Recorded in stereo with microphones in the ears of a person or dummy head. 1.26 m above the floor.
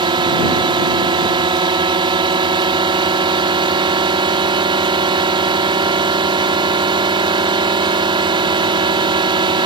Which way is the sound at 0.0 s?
25° right (ahead or behind).